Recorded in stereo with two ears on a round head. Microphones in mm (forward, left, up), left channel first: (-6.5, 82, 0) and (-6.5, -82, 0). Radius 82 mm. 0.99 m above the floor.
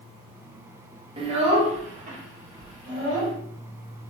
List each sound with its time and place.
1.2 s a child speaking: 30° right (ahead or behind), 1.1 m; by 3.3 s 45° right (ahead or behind), 2.5 m